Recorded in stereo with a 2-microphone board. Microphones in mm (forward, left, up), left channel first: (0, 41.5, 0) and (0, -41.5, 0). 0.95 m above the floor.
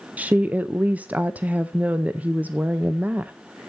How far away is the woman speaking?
About 0.5 m.